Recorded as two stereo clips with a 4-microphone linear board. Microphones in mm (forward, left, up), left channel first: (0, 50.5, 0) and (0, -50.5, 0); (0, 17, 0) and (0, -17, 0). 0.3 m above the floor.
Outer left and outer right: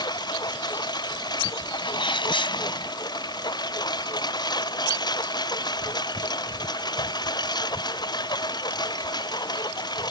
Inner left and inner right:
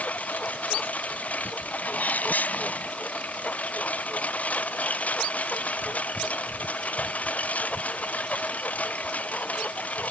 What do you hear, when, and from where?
0.0 s a lawn mower: 45° left (ahead or behind)
1.8 s a sneeze: 60° left (ahead or behind)